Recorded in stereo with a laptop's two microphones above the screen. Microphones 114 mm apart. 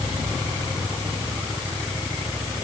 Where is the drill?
I don't hear a drill.